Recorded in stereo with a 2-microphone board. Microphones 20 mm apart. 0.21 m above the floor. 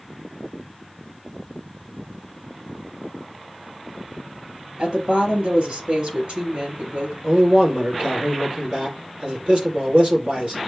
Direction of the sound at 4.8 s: 55° right (ahead or behind).